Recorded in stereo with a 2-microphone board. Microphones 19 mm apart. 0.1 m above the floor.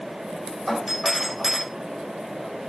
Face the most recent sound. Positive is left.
turn(degrees=-5)  # may be behind; listen again after turning